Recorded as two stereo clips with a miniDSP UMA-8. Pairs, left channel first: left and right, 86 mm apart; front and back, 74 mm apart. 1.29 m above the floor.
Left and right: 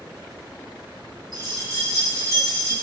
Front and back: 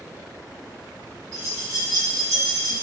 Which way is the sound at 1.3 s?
135° right.